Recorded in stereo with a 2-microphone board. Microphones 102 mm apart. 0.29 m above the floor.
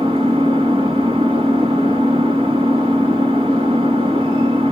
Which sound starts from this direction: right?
An engine running, at 0.0 s.